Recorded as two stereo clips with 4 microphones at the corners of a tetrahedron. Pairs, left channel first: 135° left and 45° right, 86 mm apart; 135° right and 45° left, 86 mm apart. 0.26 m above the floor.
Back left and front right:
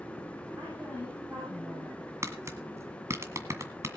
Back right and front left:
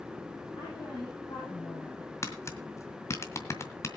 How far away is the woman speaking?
About 8.5 m.